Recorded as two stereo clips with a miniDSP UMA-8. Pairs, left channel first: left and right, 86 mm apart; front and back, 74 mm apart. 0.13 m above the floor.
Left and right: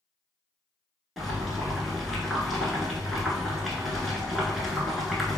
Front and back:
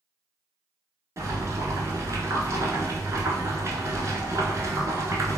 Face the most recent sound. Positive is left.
turn(degrees=180)